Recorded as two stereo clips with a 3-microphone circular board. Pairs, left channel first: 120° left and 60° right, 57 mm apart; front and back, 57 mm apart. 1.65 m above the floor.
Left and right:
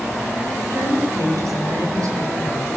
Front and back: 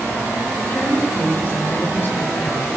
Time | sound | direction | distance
0.6 | a woman speaking | 55° right | 10 m